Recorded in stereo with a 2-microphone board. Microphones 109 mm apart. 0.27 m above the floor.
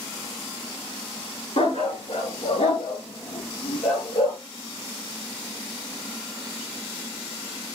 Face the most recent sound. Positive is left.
turn(degrees=85)